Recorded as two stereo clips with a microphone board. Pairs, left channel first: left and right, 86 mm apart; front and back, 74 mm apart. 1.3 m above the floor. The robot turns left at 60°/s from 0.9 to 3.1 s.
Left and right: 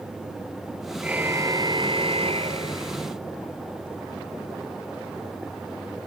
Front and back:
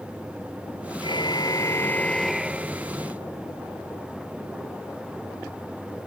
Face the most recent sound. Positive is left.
turn(degrees=-135)